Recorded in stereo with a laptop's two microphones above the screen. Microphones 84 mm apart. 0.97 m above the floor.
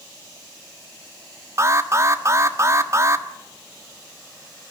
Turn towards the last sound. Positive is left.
turn(degrees=-40)  # may be behind; listen again after turning